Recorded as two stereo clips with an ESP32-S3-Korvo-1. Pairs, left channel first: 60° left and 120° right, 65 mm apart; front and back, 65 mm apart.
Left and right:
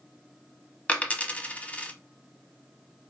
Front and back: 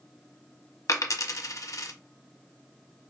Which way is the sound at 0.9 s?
5° right.